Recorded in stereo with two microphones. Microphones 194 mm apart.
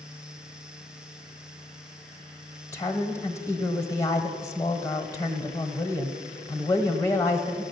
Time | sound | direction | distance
2.7 | a woman speaking | 15° left (ahead or behind) | 1.1 m